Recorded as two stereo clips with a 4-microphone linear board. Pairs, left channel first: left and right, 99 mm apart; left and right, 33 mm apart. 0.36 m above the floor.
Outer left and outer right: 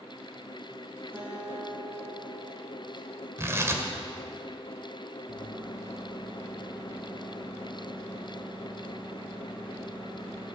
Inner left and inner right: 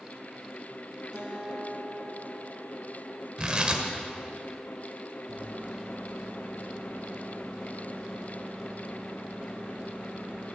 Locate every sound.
1.1 s a guitar: 20° right (ahead or behind), 3 m
3.4 s tearing paper: 30° right (ahead or behind), 1.6 m
5.3 s a microwave: 55° left (ahead or behind), 3.5 m